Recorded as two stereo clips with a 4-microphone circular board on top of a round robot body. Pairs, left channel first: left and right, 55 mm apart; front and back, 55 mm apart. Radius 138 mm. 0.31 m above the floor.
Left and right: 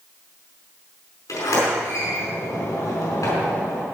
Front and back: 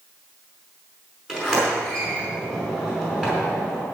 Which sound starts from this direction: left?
A sliding door, at 1.3 s.